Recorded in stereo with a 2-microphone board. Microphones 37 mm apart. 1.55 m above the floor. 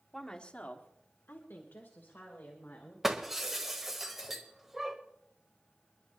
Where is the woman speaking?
10° left (ahead or behind), 1.6 m; by 2.9 s 65° left (ahead or behind), 4 m.